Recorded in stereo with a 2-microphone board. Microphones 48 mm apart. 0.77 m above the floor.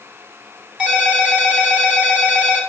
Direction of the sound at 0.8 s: 15° right (ahead or behind).